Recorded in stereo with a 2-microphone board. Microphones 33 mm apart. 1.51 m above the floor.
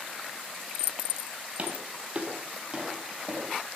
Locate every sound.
1.6 s footsteps: 45° right (ahead or behind), 2.5 m; by 3.6 s 20° right (ahead or behind), 4.5 m